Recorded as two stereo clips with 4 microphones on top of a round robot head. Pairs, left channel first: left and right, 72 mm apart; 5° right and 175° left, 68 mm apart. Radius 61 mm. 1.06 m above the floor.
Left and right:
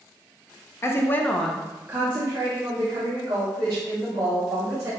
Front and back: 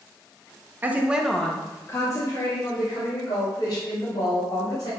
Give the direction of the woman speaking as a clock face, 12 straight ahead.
8 o'clock.